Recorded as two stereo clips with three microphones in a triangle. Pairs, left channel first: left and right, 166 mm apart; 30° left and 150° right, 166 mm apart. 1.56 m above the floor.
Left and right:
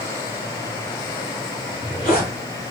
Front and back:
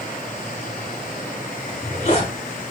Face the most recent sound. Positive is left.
turn(degrees=65)